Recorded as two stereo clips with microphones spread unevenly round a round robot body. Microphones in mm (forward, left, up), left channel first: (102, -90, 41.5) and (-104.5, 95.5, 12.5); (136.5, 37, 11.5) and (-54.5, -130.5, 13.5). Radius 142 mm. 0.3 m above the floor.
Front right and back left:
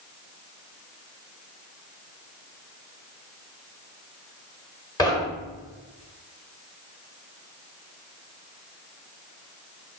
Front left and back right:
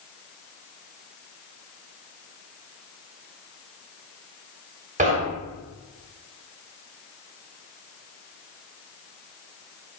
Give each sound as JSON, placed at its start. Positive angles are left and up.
{"t": 5.0, "sound": "knocking", "azimuth_deg": -115, "distance_m": 1.1}